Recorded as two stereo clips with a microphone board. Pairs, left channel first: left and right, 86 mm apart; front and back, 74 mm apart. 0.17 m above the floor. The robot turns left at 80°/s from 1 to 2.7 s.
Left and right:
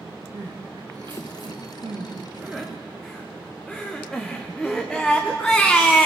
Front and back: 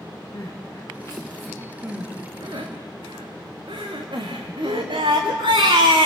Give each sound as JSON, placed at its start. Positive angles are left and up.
{"t": 0.3, "sound": "crying", "azimuth_deg": -50, "distance_m": 3.5}